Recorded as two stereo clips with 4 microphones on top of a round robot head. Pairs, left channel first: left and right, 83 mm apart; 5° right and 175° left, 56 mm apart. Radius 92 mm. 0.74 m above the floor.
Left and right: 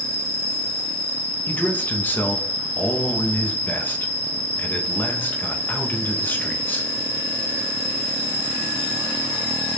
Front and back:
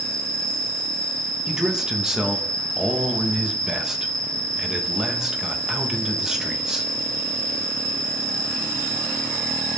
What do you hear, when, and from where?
0.0 s an insect: 65° left, 1.6 m
1.5 s a man speaking: 110° left, 0.8 m